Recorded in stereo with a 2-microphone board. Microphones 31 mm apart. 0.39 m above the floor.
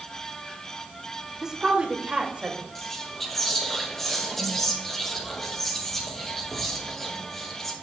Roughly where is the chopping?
No chopping in this recording.